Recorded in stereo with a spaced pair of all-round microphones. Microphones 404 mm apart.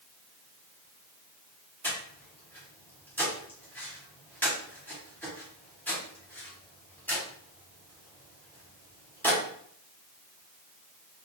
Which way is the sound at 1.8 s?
5° left (ahead or behind).